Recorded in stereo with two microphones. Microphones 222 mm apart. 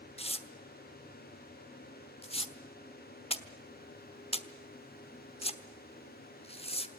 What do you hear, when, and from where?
0.2 s tearing paper: 25° left (ahead or behind), 1.2 m